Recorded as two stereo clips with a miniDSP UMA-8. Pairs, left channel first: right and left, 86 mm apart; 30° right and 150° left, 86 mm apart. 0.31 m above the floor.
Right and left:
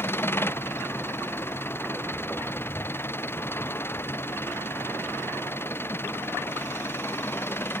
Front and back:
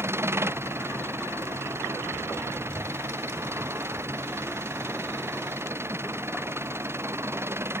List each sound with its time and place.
0.0 s an engine running: 150° right